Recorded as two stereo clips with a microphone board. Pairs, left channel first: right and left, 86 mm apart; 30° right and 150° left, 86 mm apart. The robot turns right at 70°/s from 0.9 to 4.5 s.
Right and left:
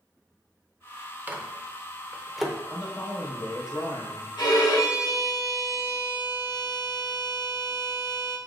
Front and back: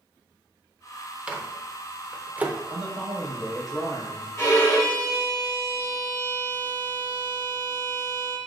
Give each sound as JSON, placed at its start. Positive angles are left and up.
{"t": 1.3, "sound": "a microwave", "azimuth_deg": 95, "distance_m": 0.6}
{"t": 2.7, "sound": "a man speaking", "azimuth_deg": 170, "distance_m": 1.8}
{"t": 4.4, "sound": "a violin", "azimuth_deg": -80, "distance_m": 1.0}